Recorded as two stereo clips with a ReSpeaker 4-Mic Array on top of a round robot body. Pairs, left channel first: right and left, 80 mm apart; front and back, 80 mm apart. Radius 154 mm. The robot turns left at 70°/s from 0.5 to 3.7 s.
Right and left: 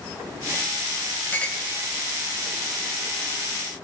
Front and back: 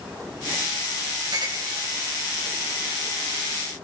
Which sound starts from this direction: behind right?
A clink, at 1.3 s.